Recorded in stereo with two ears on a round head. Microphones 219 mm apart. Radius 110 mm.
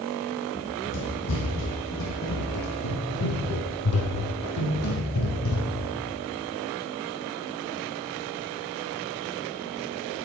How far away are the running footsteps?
About 4.5 m.